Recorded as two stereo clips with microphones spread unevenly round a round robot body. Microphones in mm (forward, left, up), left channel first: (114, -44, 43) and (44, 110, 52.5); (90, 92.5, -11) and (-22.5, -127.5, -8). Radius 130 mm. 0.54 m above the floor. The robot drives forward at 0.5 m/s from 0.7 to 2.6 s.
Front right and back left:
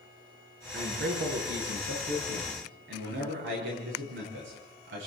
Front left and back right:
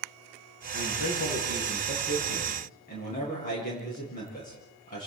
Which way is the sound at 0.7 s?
120° left.